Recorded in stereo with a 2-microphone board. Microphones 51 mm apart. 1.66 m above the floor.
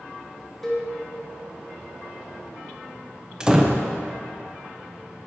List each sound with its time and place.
0.6 s a cowbell: 5° left (ahead or behind), 1.0 m
3.4 s a door slam: 15° right (ahead or behind), 0.5 m